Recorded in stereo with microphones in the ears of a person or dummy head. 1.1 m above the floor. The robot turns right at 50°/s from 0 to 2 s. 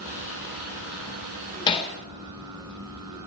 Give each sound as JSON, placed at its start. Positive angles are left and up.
{"t": 1.7, "sound": "hammering", "side_deg": 20, "distance_m": 2.5}